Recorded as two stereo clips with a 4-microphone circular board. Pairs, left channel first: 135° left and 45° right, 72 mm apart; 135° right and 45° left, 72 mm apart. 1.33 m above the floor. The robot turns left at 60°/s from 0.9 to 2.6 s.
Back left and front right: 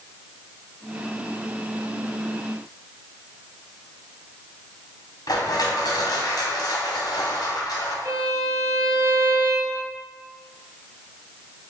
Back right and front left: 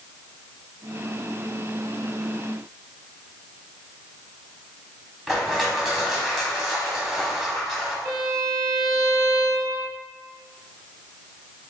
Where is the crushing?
135° left, 1.0 m.